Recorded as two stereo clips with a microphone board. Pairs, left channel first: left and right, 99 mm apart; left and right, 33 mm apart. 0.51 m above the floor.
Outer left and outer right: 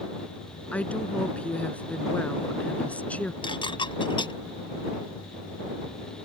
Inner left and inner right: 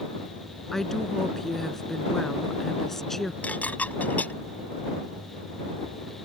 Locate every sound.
0.7 s a woman speaking: 15° left (ahead or behind)
3.4 s dishes clattering: 55° left (ahead or behind)